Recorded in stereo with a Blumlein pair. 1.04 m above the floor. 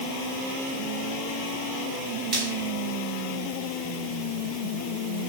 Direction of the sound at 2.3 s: 35° right.